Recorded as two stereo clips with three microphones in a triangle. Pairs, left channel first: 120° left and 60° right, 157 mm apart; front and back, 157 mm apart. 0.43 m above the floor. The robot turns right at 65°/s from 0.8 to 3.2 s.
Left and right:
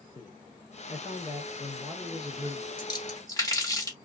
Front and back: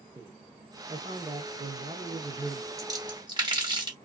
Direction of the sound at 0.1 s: 130° left.